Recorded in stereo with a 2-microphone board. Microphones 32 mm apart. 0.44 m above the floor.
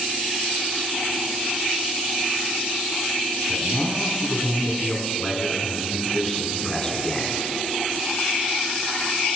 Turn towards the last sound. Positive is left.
turn(degrees=15)  # may be behind; listen again after turning